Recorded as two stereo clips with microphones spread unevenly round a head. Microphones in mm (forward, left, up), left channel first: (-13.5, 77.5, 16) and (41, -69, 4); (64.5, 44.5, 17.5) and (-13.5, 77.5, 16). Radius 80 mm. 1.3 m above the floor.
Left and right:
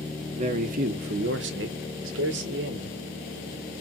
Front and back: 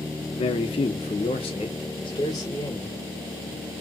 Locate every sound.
0.3 s a man speaking: 20° right, 0.8 m; by 3.0 s 105° right, 1.2 m